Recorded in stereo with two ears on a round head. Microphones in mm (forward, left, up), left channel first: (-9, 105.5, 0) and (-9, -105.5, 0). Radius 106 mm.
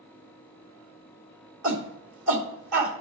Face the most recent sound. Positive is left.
turn(degrees=-55)  # may be behind; listen again after turning